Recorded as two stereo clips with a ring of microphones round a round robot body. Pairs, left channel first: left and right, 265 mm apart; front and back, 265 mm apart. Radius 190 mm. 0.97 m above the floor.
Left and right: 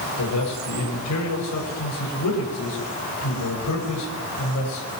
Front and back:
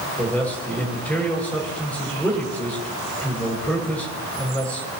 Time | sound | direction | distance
0.2 | a man speaking | 85° left | 6 m